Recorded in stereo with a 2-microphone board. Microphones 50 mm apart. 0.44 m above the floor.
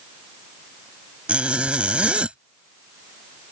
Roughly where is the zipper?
Right.